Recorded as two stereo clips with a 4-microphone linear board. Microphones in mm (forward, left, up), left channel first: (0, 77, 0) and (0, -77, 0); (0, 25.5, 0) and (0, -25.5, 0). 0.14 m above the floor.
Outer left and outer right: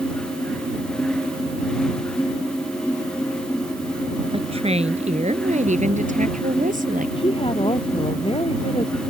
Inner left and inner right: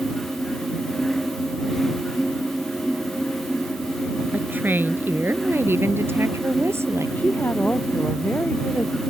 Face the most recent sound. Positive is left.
turn(degrees=35)  # may be behind; listen again after turning